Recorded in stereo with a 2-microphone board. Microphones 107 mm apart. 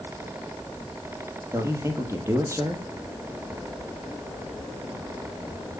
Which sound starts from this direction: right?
A man speaking, at 1.5 s.